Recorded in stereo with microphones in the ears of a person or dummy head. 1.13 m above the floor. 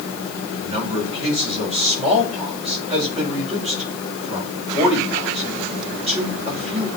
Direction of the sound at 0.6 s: 25° right (ahead or behind).